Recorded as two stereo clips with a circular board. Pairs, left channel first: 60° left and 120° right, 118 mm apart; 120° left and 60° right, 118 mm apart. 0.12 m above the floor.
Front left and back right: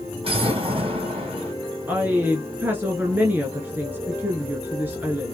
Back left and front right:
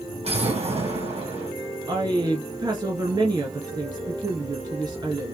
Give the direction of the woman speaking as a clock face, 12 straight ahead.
2 o'clock.